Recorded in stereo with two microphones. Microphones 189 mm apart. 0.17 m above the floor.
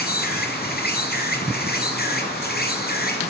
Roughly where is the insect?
Left.